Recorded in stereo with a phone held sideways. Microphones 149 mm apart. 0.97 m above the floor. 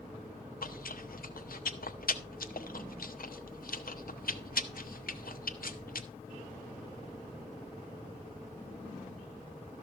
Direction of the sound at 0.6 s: 75° left (ahead or behind).